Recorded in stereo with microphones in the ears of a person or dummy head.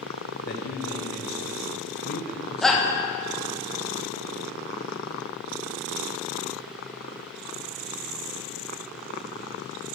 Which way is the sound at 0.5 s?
50° left (ahead or behind).